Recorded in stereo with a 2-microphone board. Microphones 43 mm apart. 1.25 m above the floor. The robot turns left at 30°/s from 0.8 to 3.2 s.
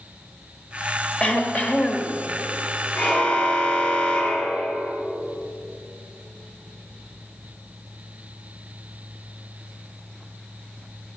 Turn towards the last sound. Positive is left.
turn(degrees=25)  # may be behind; listen again after turning